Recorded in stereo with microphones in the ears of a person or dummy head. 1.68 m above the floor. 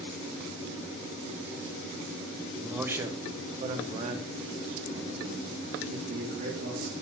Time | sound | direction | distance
2.6 | a man speaking | 5° left (ahead or behind) | 0.8 m